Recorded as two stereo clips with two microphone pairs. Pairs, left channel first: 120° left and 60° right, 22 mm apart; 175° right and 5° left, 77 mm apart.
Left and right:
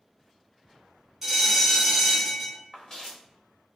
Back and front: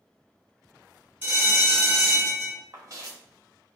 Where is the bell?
20° right, 1.8 m.